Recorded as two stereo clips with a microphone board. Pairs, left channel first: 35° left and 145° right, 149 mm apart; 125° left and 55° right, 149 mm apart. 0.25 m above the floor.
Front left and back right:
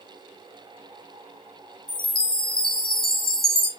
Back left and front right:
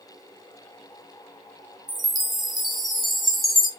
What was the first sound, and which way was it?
A chime, 35° left.